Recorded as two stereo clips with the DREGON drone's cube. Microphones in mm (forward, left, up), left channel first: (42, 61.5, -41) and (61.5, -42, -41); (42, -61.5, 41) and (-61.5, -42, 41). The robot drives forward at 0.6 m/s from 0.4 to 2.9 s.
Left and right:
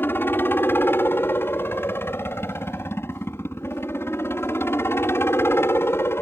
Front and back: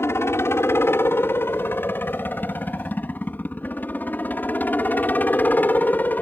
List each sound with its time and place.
0.0 s a helicopter: 40° left; by 6.2 s 50° left